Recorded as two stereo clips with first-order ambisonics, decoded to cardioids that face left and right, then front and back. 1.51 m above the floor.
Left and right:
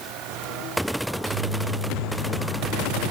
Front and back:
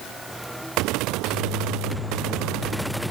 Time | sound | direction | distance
1.1 | a microwave | 65° right | 3 m